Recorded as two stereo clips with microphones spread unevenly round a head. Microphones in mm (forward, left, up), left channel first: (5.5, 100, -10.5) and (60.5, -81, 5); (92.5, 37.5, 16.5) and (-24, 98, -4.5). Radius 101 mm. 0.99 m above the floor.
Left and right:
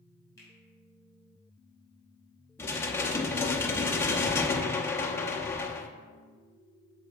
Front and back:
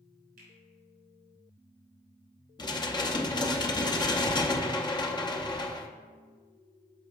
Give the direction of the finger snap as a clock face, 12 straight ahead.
6 o'clock.